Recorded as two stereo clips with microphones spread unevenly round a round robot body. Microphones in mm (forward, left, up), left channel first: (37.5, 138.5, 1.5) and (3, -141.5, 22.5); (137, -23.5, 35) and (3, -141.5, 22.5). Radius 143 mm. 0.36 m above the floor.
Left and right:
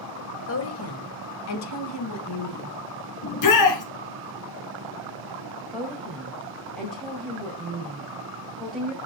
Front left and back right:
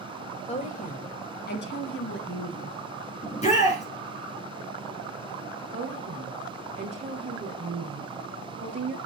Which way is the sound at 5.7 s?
170° left.